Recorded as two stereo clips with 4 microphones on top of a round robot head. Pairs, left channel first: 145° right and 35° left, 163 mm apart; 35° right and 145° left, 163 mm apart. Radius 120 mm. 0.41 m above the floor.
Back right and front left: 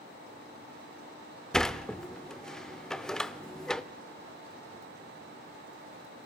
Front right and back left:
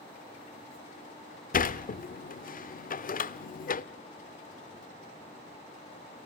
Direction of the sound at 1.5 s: 60° right.